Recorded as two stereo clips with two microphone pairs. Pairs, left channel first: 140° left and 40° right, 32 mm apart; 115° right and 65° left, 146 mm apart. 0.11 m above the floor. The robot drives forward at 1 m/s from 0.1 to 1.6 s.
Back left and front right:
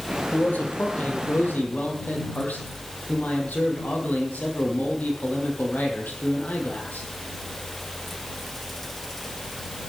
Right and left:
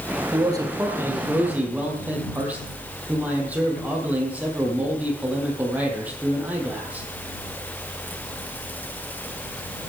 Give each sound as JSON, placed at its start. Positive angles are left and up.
{"t": 0.3, "sound": "a man speaking", "azimuth_deg": 120, "distance_m": 2.5}